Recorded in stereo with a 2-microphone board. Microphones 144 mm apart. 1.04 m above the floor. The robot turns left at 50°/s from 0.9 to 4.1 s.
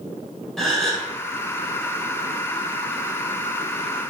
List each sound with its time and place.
0.6 s a gasp: centre (ahead or behind), 1.0 m; by 1.1 s 5° left (ahead or behind), 1.0 m